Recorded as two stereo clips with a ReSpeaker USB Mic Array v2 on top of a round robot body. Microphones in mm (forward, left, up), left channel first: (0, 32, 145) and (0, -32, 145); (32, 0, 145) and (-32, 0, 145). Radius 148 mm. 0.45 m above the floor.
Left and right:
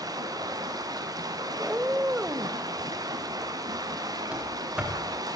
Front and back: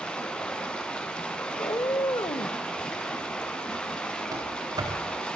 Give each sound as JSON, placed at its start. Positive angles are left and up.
{"t": 0.0, "sound": "running water", "azimuth_deg": -75, "distance_m": 3.5}
{"t": 1.6, "sound": "a cat meowing", "azimuth_deg": -25, "distance_m": 0.9}
{"t": 4.3, "sound": "running footsteps", "azimuth_deg": -165, "distance_m": 5.5}